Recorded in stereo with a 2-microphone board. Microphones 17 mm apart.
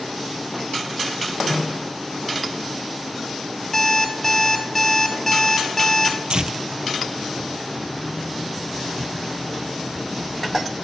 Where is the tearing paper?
60° right (ahead or behind), 0.5 m.